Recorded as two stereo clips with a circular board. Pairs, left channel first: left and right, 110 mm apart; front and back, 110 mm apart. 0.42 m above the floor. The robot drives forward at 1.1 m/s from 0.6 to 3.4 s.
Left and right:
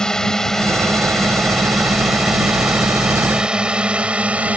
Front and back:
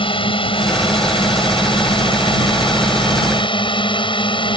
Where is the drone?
10° left; by 4.6 s 15° right.